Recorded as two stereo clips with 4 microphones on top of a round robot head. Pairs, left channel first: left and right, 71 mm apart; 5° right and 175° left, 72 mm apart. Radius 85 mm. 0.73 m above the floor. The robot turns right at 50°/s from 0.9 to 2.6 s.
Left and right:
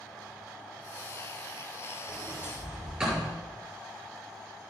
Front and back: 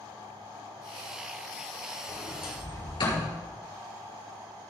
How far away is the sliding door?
About 7 m.